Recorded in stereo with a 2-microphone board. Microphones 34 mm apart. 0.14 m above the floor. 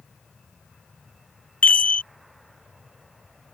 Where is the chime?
50° left (ahead or behind).